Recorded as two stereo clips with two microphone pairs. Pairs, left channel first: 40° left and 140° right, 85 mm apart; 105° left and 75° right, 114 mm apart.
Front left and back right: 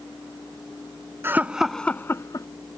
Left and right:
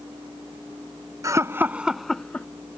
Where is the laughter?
105° right; by 2.5 s 30° left.